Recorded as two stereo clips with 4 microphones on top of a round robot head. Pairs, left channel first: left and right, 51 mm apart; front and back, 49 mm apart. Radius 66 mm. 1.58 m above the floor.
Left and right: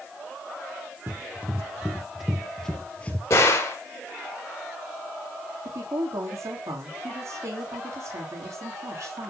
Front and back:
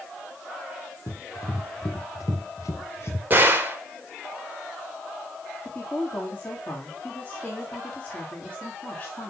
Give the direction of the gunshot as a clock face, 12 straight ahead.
8 o'clock.